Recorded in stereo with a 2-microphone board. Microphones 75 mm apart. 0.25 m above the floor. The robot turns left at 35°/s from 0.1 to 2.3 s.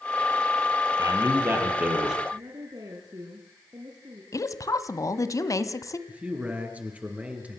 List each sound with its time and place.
1.0 s a man speaking: 130° right, 7.5 m; by 2.2 s 175° right, 7.5 m
2.3 s a woman speaking: 60° right (ahead or behind), 3.5 m
4.3 s a woman speaking: 45° left (ahead or behind), 1.5 m
6.1 s a man speaking: 20° right (ahead or behind), 4.5 m